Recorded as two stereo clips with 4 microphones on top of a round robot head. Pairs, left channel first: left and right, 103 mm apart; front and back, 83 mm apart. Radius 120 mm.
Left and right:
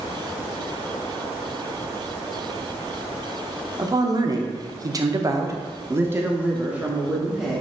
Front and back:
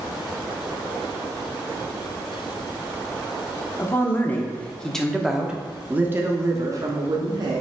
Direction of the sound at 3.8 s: 55° right.